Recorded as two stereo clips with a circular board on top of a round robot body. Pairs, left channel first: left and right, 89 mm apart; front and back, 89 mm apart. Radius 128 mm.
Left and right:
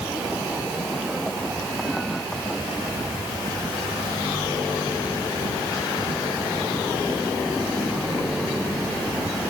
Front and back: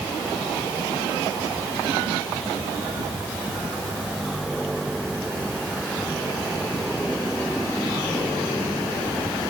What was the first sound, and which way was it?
Only background noise.